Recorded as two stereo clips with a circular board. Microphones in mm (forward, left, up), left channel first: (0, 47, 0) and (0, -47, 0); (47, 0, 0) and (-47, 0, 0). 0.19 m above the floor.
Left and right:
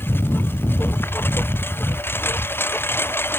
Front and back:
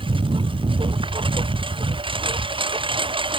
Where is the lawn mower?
155° left.